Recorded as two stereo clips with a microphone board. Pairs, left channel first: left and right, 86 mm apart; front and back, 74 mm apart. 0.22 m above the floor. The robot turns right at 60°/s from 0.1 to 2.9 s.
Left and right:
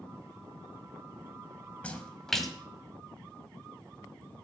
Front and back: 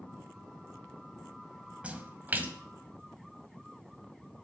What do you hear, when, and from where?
1.8 s a splash: 140° left, 1.5 m; by 2.5 s straight behind, 1.5 m